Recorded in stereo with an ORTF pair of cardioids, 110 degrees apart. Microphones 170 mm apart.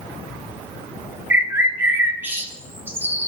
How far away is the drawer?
No drawer in this recording.